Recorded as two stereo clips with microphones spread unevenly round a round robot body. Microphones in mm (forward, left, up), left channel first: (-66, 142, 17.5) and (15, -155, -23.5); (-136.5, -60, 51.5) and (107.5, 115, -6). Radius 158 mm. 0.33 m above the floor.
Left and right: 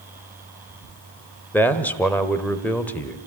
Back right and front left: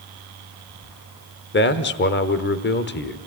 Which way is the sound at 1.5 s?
160° right.